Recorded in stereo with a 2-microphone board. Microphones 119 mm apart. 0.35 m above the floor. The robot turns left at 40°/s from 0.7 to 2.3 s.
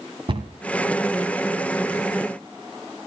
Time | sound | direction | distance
0.3 | a cupboard door | 45° right (ahead or behind) | 1.6 m